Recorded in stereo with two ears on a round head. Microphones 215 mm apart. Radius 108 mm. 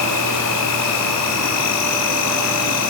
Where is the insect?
80° left, 4 m.